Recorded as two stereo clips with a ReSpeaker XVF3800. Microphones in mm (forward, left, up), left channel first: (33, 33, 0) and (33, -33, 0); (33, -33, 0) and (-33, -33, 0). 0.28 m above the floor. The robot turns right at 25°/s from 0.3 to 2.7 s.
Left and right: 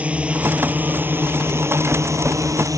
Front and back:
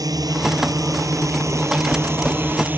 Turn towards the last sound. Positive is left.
turn(degrees=-120)